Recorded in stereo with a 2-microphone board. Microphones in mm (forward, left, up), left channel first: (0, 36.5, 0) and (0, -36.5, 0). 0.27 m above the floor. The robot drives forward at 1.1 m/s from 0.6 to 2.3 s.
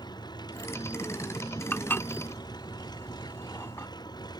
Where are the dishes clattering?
25° left (ahead or behind); by 3.9 s 35° left (ahead or behind).